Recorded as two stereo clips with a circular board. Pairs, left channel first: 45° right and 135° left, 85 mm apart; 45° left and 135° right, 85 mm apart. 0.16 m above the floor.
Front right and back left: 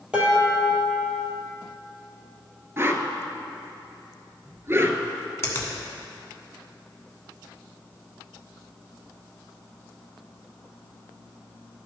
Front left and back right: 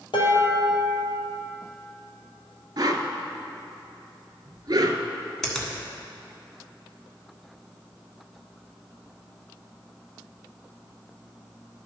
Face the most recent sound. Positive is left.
turn(degrees=-35)